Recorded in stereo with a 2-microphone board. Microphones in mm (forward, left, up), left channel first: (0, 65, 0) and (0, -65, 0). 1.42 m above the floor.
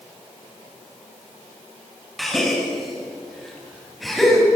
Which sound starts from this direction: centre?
A gasp, at 2.2 s.